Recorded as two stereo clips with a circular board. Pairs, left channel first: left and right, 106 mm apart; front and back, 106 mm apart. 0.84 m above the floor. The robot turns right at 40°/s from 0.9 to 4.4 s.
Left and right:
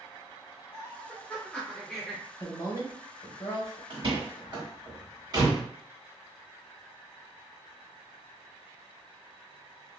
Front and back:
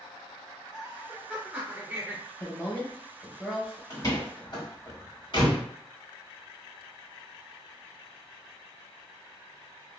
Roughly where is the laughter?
Behind left.